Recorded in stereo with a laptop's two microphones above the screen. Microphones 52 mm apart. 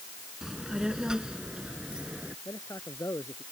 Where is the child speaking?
10° right (ahead or behind); by 2.4 s 20° right (ahead or behind).